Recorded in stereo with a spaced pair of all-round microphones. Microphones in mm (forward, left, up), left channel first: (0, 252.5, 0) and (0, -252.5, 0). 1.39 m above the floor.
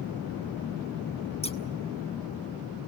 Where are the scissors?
10° left (ahead or behind), 0.9 m.